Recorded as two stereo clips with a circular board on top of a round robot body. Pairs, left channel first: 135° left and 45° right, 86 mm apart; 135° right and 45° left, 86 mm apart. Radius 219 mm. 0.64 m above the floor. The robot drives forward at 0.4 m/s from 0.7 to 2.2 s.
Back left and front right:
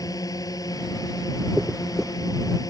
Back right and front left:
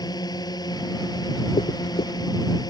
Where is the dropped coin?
135° right.